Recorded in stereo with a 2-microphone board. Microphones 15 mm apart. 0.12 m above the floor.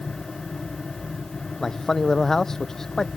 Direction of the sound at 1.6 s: 35° left (ahead or behind).